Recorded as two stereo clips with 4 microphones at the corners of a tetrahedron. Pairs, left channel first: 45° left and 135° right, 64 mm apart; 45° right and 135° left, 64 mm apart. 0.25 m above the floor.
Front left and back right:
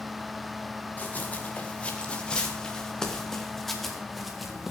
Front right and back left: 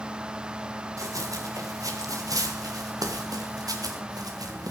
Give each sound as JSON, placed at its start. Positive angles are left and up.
{"t": 1.0, "sound": "running footsteps", "azimuth_deg": 110, "distance_m": 4.0}